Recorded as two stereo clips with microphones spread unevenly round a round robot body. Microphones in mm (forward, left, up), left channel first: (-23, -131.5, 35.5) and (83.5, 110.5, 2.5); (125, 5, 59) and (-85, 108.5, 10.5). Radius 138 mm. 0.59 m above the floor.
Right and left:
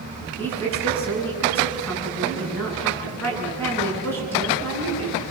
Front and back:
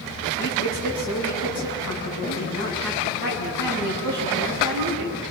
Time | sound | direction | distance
0.4 | a woman speaking | 30° right | 8.5 m